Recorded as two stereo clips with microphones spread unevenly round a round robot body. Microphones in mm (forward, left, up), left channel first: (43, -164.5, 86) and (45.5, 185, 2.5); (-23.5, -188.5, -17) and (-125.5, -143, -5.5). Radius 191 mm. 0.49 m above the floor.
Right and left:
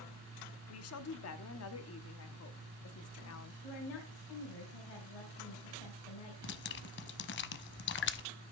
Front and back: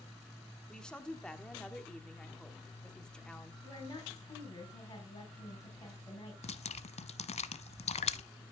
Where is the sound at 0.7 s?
85° right, 1.1 m.